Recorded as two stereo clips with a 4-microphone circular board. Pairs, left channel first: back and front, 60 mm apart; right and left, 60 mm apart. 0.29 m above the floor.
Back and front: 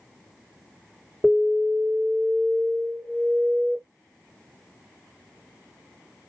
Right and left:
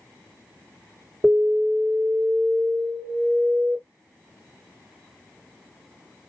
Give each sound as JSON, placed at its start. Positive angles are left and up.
{"t": 1.2, "sound": "an alarm", "azimuth_deg": 70, "distance_m": 2.0}